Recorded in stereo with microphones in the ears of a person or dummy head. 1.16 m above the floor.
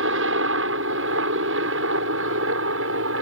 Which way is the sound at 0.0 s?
70° right (ahead or behind).